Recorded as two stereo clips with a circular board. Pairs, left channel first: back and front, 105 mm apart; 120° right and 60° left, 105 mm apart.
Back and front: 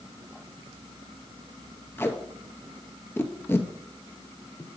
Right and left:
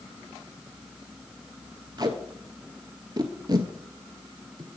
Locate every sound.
2.0 s tape being pulled: 110° left, 0.8 m